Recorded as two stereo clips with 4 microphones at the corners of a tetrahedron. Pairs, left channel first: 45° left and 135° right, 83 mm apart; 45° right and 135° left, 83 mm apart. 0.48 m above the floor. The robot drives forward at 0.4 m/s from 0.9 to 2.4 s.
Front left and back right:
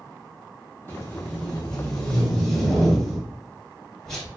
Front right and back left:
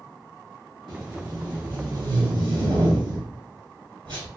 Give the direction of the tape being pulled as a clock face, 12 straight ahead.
8 o'clock.